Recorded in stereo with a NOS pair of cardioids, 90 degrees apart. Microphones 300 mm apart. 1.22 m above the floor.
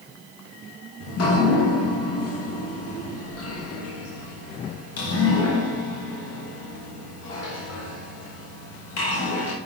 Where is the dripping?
55° left, 1.1 m.